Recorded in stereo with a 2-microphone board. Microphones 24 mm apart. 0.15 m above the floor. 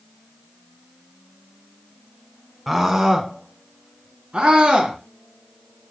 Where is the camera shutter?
No camera shutter in this recording.